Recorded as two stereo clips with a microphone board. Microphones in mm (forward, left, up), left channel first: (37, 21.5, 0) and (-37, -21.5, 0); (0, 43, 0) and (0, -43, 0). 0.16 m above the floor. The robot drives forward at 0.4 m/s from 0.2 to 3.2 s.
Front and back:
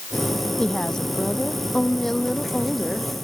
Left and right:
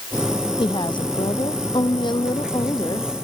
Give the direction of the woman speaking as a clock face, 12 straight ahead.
8 o'clock.